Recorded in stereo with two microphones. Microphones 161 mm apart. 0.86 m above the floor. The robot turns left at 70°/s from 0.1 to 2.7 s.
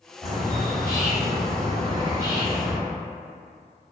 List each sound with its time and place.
0.2 s a bird: straight ahead, 0.7 m; by 2.8 s 170° right, 0.7 m